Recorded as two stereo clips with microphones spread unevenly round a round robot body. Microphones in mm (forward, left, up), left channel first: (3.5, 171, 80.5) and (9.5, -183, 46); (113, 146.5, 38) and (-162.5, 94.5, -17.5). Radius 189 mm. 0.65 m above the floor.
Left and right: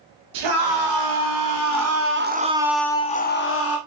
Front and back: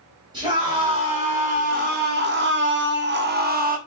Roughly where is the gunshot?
I don't hear a gunshot.